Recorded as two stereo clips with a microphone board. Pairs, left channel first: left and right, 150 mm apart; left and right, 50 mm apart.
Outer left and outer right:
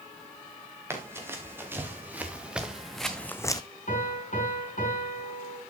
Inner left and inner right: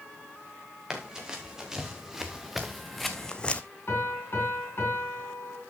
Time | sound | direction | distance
0.9 | running footsteps | 15° right (ahead or behind) | 3 m
3.9 | a piano | 60° left (ahead or behind) | 3.5 m